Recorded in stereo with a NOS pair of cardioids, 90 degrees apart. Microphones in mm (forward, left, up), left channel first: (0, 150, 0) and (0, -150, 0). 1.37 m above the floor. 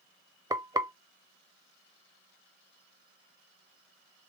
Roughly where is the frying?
Ahead.